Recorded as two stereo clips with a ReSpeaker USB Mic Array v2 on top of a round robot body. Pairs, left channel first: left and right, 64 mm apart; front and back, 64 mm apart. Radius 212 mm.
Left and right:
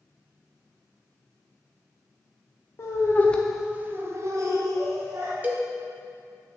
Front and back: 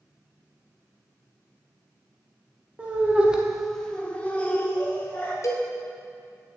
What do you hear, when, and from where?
2.8 s laughter: 120° left, 1.3 m; by 5.3 s 65° right, 2.5 m
5.4 s a cowbell: 30° right, 1.1 m